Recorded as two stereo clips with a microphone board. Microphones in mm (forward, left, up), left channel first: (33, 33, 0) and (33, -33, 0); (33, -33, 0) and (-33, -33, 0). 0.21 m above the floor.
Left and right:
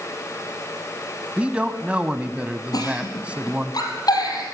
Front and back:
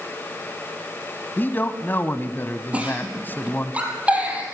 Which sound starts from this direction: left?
A giggle, at 2.7 s.